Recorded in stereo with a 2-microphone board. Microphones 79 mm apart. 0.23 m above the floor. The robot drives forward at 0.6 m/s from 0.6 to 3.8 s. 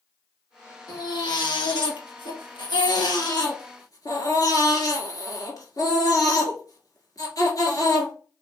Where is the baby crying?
55° left (ahead or behind), 1.4 m; by 8.1 s 50° left (ahead or behind), 1.6 m.